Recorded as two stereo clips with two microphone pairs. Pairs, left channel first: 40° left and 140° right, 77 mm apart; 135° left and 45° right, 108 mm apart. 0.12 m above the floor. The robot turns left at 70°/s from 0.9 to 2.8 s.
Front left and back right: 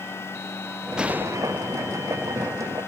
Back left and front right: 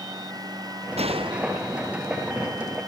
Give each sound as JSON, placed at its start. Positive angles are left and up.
{"t": 1.0, "sound": "a gunshot", "azimuth_deg": -60}